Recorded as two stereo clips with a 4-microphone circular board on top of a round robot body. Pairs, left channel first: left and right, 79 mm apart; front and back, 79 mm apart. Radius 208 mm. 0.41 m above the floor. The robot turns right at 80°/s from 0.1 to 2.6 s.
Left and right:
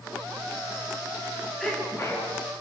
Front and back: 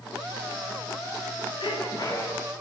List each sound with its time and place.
1.6 s a sneeze: straight ahead, 9 m; by 2.3 s 60° left, 9 m